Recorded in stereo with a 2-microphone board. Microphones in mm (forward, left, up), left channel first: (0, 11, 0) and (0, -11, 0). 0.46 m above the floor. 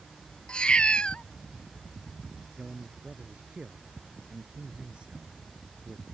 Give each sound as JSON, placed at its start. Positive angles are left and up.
{"t": 0.5, "sound": "a cat meowing", "side_deg": 50}
{"t": 2.6, "sound": "a man speaking", "side_deg": -50}